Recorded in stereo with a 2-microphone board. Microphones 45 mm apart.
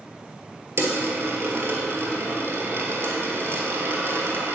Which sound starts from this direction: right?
A dropped coin, at 0.8 s.